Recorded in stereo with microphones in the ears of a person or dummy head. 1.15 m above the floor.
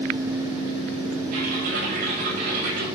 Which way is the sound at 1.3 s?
55° right (ahead or behind).